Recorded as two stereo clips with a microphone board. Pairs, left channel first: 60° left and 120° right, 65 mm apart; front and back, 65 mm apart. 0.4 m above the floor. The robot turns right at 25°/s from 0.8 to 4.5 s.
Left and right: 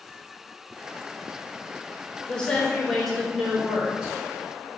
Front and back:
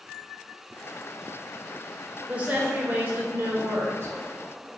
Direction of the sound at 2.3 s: 125° left.